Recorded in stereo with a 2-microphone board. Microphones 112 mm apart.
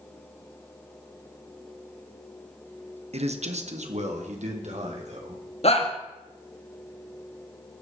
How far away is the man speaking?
About 1.2 m.